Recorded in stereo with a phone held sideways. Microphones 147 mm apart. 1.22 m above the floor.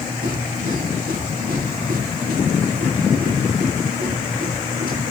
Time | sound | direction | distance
0.0 | a machine running | 85° right | 8.5 m